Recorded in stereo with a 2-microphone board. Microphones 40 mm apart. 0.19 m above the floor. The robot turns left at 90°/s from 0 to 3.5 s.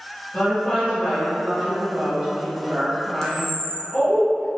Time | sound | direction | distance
0.3 | a woman speaking | 20° left (ahead or behind) | 1.0 m
3.2 | a camera shutter | 15° left (ahead or behind) | 0.5 m